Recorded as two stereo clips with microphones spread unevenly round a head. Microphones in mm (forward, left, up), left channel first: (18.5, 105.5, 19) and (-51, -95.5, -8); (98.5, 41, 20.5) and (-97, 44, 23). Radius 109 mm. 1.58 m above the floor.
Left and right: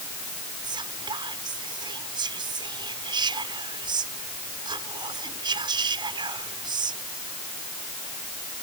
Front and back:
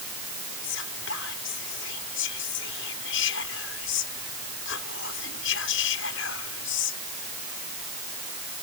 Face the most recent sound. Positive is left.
turn(degrees=-35)